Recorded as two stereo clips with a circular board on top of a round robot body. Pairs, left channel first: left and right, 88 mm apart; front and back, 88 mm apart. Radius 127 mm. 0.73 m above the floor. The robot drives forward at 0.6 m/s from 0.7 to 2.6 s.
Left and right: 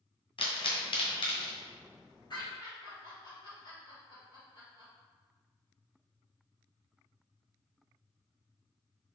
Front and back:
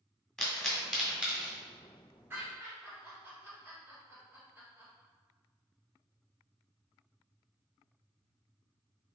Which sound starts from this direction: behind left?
Laughter, at 2.3 s.